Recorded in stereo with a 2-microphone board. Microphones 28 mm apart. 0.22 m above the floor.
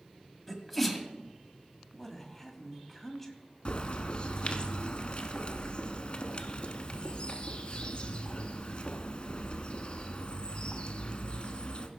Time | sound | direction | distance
0.5 | a sneeze | centre (ahead or behind) | 1.6 m
1.9 | a woman speaking | 5° left (ahead or behind) | 1.7 m
3.6 | a bird | 40° left (ahead or behind) | 1.0 m